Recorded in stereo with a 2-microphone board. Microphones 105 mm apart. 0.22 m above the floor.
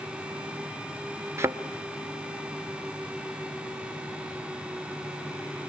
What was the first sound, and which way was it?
A thud, 25° right (ahead or behind).